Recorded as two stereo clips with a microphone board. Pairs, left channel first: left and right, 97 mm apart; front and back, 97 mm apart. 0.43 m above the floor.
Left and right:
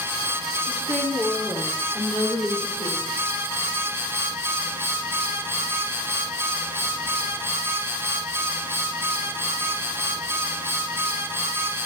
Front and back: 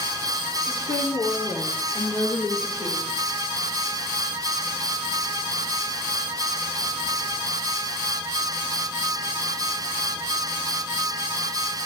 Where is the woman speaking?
15° right, 6 m; by 3.2 s straight ahead, 7 m.